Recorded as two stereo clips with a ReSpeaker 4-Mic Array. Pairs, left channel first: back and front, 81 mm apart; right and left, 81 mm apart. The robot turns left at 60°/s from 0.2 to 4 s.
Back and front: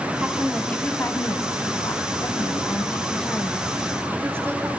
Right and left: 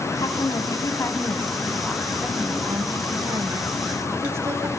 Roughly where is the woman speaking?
Right.